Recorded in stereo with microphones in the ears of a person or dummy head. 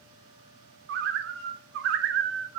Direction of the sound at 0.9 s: 60° right (ahead or behind).